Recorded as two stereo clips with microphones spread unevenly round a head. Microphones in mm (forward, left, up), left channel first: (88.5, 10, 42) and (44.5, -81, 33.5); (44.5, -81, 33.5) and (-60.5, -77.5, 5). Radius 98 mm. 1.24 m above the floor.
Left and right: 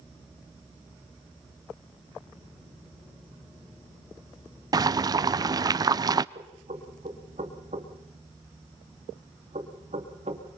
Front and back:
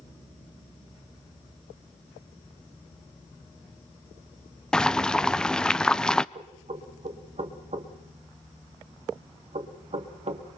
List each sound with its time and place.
4.7 s boiling: 100° right, 0.5 m
6.3 s knocking: 160° right, 2 m